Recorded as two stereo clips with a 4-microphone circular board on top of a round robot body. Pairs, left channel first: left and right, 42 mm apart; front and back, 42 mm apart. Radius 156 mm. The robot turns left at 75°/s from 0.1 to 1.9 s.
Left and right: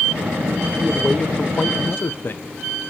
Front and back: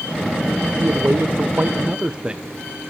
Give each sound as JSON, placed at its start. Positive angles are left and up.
{"t": 0.8, "sound": "a man speaking", "azimuth_deg": -160, "distance_m": 1.1}